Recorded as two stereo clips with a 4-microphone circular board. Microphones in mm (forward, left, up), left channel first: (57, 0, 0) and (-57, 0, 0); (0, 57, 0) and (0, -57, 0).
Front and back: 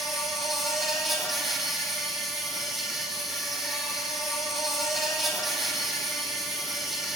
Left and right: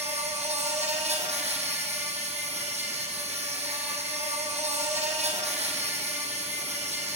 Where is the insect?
90° right, 4.5 m.